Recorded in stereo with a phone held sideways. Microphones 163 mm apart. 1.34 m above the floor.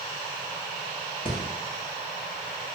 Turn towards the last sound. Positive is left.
turn(degrees=30)  # may be behind; listen again after turning